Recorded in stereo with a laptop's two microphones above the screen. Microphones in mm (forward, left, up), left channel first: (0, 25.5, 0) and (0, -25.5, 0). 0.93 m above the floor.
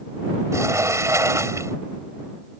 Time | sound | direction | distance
0.5 | a sliding door | 75° right (ahead or behind) | ?